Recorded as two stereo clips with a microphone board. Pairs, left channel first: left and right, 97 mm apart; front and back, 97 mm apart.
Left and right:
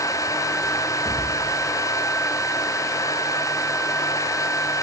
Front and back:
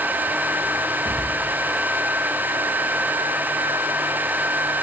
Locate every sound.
1.1 s a thud: 175° left, 10 m